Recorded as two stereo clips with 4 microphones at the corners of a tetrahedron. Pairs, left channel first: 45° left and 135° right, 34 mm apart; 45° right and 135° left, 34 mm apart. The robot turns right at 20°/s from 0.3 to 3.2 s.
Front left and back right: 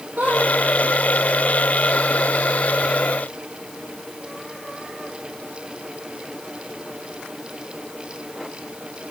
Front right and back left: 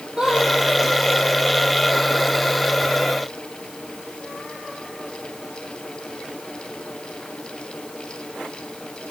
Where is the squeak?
160° right, 4 m.